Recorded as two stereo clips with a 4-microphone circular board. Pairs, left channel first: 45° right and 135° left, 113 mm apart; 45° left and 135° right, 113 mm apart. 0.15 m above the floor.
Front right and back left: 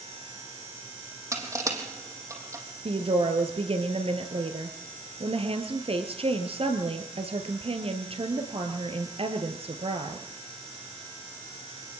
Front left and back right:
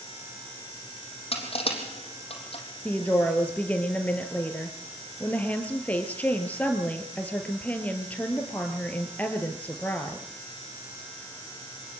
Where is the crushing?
75° left, 3.5 m.